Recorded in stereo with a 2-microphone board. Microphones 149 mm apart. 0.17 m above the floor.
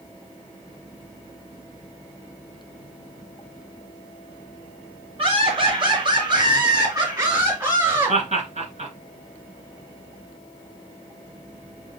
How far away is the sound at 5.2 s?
About 2 m.